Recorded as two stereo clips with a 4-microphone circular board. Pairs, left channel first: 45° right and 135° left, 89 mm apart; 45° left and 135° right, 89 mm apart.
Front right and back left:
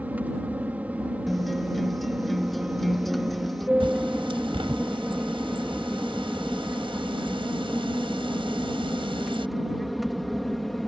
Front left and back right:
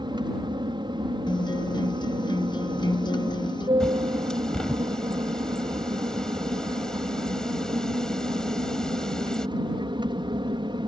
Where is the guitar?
45° left.